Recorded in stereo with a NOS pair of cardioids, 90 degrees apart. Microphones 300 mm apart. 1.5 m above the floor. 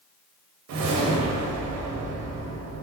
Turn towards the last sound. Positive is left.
turn(degrees=-70)